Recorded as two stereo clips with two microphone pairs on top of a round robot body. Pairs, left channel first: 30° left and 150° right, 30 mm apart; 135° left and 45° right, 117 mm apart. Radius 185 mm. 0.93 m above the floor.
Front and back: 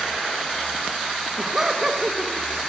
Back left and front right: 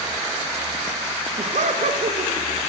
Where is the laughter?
70° right, 1.7 m.